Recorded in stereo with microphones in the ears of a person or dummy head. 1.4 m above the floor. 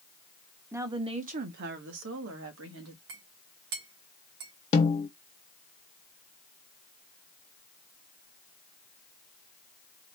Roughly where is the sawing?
I don't hear sawing.